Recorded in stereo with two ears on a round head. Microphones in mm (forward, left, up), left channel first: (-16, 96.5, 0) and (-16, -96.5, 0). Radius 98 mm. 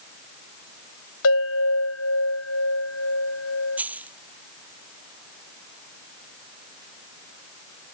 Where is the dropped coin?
5° right (ahead or behind).